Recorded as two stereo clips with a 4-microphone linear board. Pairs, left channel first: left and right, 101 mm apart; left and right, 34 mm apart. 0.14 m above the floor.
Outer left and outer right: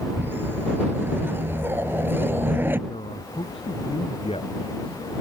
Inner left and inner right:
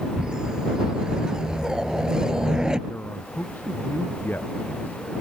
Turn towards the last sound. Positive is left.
turn(degrees=70)  # may be behind; listen again after turning